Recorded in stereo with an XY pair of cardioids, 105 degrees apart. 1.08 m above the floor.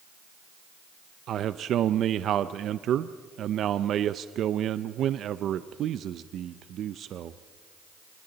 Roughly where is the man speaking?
Ahead right.